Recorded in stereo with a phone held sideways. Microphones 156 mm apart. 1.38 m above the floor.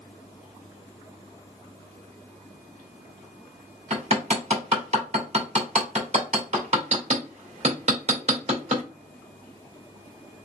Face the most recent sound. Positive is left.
turn(degrees=-45)  # may be behind; listen again after turning